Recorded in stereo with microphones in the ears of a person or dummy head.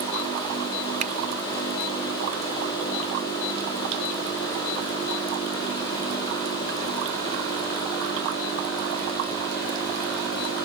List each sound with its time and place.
1.0 s a finger snap: 35° right (ahead or behind)